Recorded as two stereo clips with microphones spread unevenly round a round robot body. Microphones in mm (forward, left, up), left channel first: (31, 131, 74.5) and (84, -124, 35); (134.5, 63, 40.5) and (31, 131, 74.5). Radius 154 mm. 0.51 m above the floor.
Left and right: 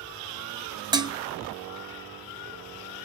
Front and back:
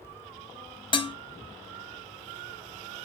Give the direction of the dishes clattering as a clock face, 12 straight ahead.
12 o'clock.